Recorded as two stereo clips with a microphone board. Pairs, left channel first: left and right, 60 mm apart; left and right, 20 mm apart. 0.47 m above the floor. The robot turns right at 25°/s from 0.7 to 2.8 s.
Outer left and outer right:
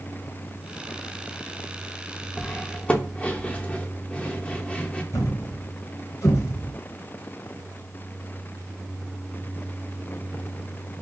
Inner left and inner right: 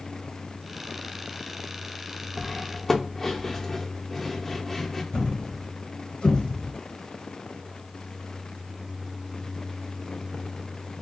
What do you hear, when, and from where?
2.4 s cutlery clinking: 20° left (ahead or behind), 0.6 m
5.1 s a thud: 60° left (ahead or behind), 1.4 m